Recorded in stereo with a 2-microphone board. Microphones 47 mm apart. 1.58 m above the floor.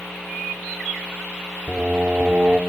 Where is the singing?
50° right (ahead or behind), 2.5 m.